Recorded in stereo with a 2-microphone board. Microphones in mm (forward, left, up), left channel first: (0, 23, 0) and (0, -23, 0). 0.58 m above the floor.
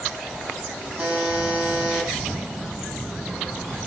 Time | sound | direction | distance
1.0 | a buzzer | 40° right (ahead or behind) | 10 m